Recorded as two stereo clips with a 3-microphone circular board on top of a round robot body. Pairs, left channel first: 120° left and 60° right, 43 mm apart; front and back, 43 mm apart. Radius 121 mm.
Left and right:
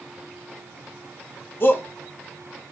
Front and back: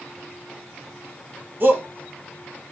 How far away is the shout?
About 1.9 m.